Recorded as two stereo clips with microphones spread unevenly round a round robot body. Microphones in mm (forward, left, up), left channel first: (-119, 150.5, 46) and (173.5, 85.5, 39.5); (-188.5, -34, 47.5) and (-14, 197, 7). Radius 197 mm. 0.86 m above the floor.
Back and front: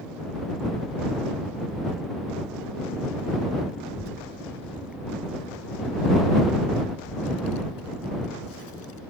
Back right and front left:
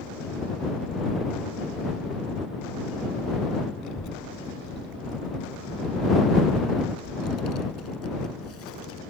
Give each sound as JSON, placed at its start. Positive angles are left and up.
{"t": 3.8, "sound": "a child speaking", "azimuth_deg": -145}